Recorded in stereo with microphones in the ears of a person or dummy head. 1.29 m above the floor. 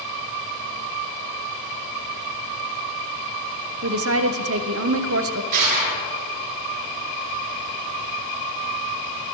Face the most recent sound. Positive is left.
turn(degrees=-45)  # may be behind; listen again after turning